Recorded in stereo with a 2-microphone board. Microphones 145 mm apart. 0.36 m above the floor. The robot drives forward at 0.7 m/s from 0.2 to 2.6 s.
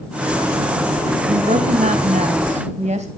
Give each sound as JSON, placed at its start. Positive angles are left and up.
{"t": 1.3, "sound": "a woman speaking", "side_deg": -60, "distance_m": 1.7}